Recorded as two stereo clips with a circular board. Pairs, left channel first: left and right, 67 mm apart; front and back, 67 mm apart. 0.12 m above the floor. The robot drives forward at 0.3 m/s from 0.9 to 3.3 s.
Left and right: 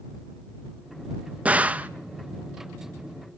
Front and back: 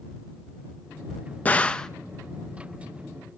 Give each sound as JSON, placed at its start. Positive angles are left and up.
{"t": 1.4, "sound": "a gunshot", "azimuth_deg": -40, "distance_m": 0.5}